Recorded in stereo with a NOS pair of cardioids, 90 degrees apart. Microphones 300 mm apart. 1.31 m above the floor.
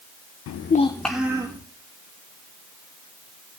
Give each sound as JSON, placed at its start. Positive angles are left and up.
{"t": 0.5, "sound": "a child speaking", "azimuth_deg": 65, "distance_m": 0.6}